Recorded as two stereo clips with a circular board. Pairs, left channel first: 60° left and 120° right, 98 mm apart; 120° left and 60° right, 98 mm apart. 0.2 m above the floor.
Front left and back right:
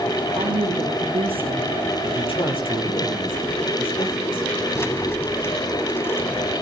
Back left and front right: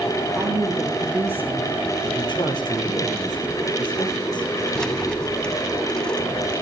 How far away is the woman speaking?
About 5.5 m.